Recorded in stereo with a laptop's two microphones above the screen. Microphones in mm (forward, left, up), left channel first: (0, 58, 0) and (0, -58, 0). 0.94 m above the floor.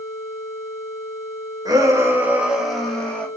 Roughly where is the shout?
Right.